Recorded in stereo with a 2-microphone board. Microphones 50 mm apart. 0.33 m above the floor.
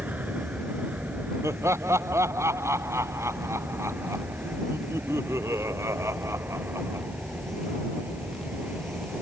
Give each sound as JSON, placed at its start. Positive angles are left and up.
{"t": 0.0, "sound": "an aircraft", "side_deg": -35}
{"t": 1.4, "sound": "laughter", "side_deg": -70}